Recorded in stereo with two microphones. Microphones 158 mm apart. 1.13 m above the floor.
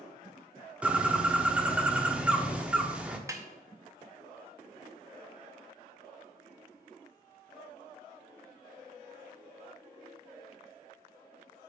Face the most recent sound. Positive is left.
turn(degrees=-20)  # may be behind; listen again after turning